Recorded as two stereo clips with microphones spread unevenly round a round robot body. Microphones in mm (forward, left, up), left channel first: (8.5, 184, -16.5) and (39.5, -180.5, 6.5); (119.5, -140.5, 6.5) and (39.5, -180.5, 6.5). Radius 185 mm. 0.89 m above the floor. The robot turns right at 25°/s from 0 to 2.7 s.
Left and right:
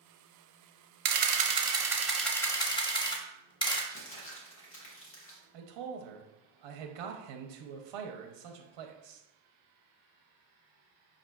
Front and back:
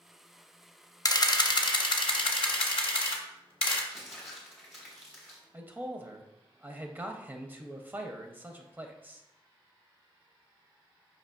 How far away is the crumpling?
About 0.8 m.